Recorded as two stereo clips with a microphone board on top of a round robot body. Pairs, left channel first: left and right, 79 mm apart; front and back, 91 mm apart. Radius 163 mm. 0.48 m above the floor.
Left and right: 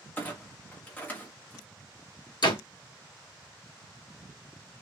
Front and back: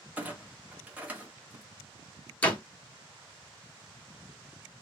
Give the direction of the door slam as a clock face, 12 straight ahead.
10 o'clock.